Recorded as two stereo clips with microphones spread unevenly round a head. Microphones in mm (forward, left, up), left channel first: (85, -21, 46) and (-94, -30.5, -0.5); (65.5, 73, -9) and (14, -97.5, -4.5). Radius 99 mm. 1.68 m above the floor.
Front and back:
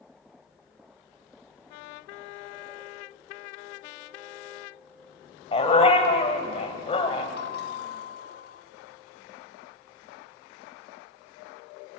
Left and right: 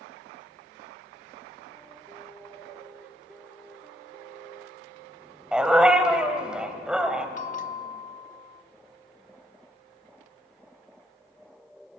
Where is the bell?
30° left, 1.0 m.